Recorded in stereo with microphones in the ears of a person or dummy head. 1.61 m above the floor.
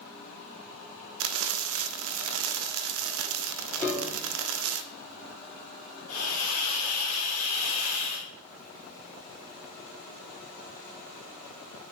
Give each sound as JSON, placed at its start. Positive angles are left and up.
{"t": 1.2, "sound": "frying", "side_deg": -90, "distance_m": 0.6}
{"t": 3.8, "sound": "a piano", "side_deg": 10, "distance_m": 2.0}
{"t": 6.1, "sound": "a hiss", "side_deg": 85, "distance_m": 1.9}